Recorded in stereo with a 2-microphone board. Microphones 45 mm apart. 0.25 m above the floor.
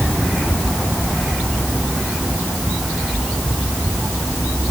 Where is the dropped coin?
I don't hear a dropped coin.